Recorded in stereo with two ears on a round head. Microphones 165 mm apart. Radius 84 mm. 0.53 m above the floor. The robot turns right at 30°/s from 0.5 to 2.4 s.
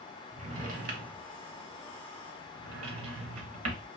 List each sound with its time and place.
0.3 s a drawer: 40° right (ahead or behind), 0.8 m; by 3.9 s 80° right, 0.8 m